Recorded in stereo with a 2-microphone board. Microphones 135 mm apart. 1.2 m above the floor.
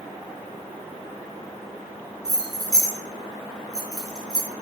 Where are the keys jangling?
30° right (ahead or behind), 0.7 m.